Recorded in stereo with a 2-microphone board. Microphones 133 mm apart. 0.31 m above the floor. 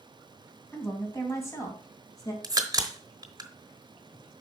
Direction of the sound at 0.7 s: 20° left (ahead or behind).